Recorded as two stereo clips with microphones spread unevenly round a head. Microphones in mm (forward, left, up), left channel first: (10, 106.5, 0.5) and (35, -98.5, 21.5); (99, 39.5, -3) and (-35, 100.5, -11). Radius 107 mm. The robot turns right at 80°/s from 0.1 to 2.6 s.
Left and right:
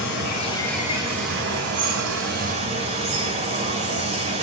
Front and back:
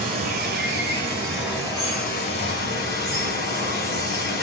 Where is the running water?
135° left, 2.5 m; by 4.4 s 25° right, 2.5 m.